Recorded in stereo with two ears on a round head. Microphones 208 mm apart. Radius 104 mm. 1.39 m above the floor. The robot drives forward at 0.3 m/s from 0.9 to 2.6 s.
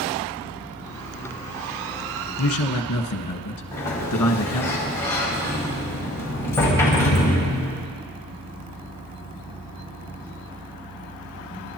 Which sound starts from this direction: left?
A man speaking, at 2.4 s.